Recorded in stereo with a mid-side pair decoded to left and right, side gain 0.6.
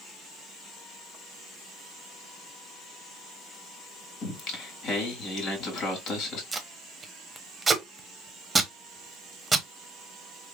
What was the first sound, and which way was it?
Singing, 60° left.